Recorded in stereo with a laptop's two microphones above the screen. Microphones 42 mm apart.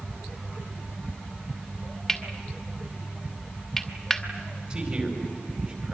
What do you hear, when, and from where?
2.1 s cutlery clinking: centre (ahead or behind), 1.5 m
4.7 s a man speaking: 30° right (ahead or behind), 4.5 m